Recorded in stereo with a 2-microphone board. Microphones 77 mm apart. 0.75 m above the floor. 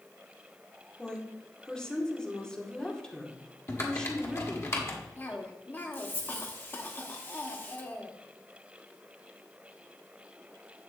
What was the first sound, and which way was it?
A woman speaking, 10° left (ahead or behind).